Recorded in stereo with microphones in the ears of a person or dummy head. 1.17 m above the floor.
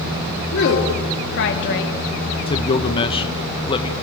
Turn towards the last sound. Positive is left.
turn(degrees=25)  # may be behind; listen again after turning